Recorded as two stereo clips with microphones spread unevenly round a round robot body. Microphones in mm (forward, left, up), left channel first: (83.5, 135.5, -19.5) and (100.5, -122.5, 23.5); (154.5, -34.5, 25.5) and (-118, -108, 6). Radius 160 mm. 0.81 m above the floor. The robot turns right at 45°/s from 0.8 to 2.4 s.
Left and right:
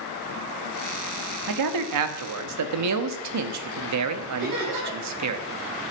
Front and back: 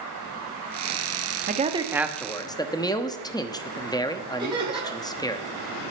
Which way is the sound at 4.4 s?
90° right.